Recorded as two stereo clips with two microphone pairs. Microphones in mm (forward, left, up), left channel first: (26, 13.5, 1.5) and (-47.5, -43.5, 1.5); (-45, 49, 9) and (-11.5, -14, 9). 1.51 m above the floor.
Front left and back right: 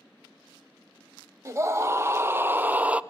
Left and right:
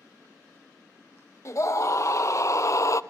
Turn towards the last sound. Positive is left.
turn(degrees=145)